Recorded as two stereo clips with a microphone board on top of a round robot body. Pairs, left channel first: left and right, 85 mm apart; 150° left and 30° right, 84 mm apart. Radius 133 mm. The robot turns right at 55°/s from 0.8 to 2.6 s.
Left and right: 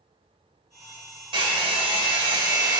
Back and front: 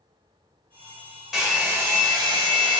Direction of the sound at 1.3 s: 115° right.